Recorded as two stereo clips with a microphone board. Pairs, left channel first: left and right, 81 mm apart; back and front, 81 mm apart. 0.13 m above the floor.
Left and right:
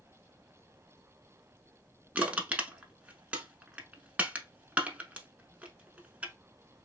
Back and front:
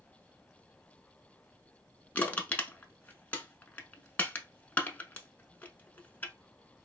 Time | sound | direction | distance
2.1 | crushing | 140° right | 0.6 m